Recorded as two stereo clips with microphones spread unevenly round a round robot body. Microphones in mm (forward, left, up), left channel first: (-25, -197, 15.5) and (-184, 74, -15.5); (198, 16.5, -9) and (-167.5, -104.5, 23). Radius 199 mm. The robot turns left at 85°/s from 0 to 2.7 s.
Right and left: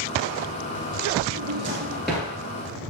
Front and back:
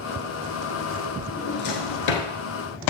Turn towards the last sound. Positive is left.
turn(degrees=-25)